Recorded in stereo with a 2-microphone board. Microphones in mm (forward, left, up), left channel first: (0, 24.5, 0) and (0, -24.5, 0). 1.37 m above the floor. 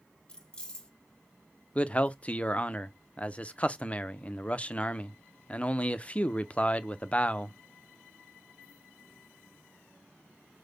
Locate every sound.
0.3 s keys jangling: 20° left (ahead or behind), 1.2 m
1.8 s a man speaking: 25° left (ahead or behind), 0.5 m